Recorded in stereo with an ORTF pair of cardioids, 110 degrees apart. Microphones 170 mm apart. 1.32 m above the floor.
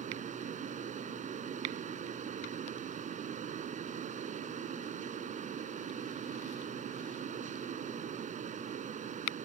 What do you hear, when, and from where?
0.0 s a fan: 45° right